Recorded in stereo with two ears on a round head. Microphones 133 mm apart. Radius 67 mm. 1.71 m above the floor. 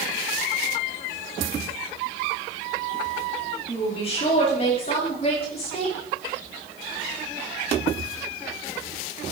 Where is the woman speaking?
40° left (ahead or behind), 5 m; by 6.0 s 45° left (ahead or behind), 6.5 m.